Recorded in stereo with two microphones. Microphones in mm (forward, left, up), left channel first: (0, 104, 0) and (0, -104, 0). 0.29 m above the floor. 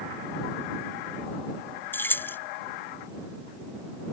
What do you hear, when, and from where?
1.9 s keys jangling: 10° left (ahead or behind)